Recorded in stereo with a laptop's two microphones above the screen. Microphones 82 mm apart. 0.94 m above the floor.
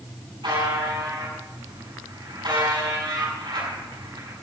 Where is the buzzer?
85° right, 7.5 m.